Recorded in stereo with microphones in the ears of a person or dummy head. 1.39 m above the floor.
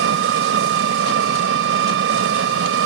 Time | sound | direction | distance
0.0 | an engine running | 80° right | ?